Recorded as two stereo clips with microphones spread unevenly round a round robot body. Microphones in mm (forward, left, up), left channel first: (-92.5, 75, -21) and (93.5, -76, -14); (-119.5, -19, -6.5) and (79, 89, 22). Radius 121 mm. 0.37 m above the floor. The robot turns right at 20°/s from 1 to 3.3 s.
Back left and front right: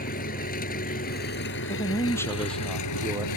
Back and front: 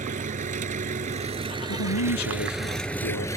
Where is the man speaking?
150° right; by 3.3 s 115° right.